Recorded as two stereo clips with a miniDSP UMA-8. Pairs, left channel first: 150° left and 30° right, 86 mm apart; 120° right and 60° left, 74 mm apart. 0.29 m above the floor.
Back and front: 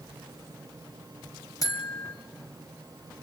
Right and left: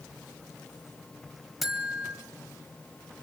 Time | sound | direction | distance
1.6 | a buzzer | 145° left | 1.7 m